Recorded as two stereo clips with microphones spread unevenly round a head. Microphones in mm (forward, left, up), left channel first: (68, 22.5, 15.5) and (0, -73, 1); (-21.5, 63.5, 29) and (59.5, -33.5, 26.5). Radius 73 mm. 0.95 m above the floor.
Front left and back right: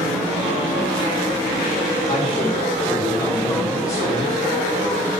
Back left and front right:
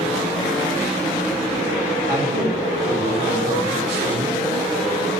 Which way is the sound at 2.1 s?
5° left.